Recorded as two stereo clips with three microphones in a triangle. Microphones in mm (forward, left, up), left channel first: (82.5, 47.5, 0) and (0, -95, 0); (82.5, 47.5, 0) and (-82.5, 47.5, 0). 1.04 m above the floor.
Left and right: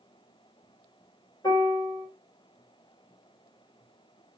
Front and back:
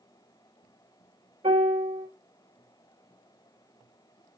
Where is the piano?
125° left, 2.5 m.